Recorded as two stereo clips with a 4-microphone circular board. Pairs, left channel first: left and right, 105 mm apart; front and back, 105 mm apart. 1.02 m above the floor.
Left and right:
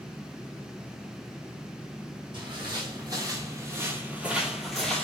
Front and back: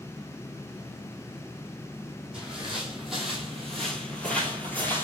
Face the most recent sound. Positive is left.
turn(degrees=25)